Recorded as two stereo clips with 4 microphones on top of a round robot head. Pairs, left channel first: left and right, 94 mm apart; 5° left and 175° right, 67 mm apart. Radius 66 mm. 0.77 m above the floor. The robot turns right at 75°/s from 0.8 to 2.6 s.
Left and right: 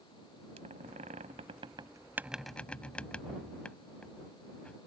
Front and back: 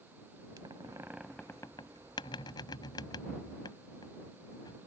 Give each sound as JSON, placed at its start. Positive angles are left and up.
{"t": 0.6, "sound": "a squeak", "azimuth_deg": -120}